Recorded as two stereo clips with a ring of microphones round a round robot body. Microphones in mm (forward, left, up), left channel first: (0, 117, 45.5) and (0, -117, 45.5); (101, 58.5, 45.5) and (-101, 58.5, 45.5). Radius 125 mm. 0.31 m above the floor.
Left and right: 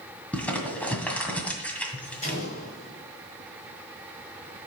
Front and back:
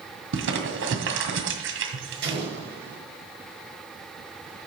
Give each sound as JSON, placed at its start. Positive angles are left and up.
{"t": 0.3, "sound": "crumpling", "azimuth_deg": 175, "distance_m": 1.9}
{"t": 2.2, "sound": "an explosion", "azimuth_deg": 150, "distance_m": 5.5}